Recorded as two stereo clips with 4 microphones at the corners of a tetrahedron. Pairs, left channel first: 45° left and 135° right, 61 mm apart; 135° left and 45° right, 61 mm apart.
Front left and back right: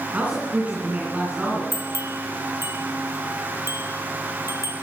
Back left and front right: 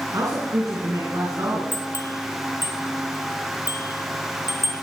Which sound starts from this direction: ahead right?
A man speaking, at 0.1 s.